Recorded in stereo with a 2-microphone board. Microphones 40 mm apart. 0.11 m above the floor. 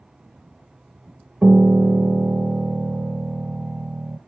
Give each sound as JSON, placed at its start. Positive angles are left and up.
{"t": 1.4, "sound": "a piano", "side_deg": -25, "distance_m": 0.8}